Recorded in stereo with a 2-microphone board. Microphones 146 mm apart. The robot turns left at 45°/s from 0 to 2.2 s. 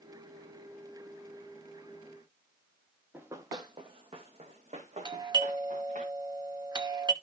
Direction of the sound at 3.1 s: 10° right (ahead or behind).